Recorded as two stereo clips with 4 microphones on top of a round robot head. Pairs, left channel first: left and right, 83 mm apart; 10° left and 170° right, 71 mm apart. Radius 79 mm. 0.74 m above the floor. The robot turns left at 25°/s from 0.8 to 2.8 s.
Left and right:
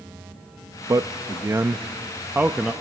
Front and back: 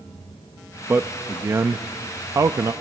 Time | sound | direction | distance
0.9 | a man speaking | 120° right | 0.6 m